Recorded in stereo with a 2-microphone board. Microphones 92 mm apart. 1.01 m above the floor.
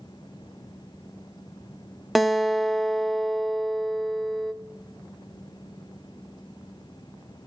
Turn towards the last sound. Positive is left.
turn(degrees=-5)  # may be behind; listen again after turning